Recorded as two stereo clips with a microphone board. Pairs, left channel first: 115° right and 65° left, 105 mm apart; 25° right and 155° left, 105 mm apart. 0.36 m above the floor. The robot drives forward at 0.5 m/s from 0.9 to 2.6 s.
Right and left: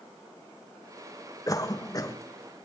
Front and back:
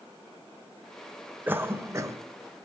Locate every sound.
1.5 s a cough: 140° right, 1.1 m; by 2.2 s 155° right, 1.3 m